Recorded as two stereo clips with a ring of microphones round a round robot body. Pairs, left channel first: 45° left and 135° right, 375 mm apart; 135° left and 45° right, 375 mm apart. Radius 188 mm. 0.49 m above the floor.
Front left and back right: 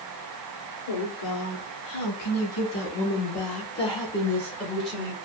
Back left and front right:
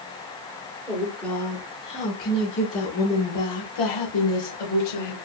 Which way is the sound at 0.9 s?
40° left.